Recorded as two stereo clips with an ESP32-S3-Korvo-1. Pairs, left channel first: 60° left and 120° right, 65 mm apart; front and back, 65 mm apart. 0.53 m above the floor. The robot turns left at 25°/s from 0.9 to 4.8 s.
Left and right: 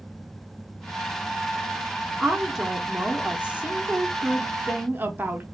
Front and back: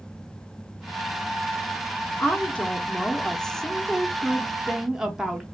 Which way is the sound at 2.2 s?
40° right.